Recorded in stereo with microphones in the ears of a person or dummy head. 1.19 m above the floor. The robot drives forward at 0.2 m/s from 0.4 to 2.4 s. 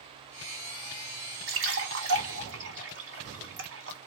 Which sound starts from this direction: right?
A splash, at 1.5 s.